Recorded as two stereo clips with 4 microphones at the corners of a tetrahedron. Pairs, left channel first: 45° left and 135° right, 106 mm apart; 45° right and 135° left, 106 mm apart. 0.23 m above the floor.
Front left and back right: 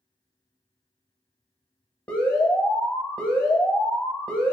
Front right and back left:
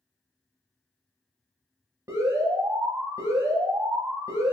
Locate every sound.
2.1 s an alarm: 110° left, 0.7 m